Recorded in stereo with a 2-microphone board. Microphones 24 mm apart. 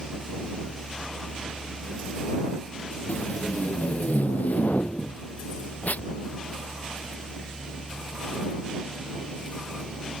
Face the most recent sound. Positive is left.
turn(degrees=75)  # may be behind; listen again after turning